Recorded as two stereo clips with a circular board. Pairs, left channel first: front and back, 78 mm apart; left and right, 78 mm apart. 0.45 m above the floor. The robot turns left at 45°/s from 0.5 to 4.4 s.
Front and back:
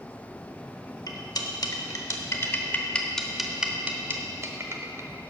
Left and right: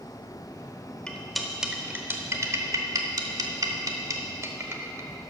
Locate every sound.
1.1 s cutlery clinking: 15° left, 0.8 m; by 5.1 s 135° right, 0.8 m